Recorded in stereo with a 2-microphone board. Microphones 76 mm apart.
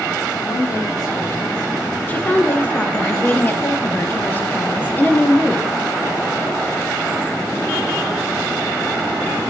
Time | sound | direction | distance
0.4 | a woman speaking | 60° left (ahead or behind) | 7.5 m
2.1 | a woman speaking | 25° left (ahead or behind) | 2.0 m